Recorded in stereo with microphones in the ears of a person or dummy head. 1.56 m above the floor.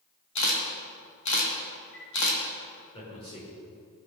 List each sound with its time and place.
0.3 s a camera shutter: 55° left (ahead or behind), 3 m
2.9 s a man speaking: 20° left (ahead or behind), 5.5 m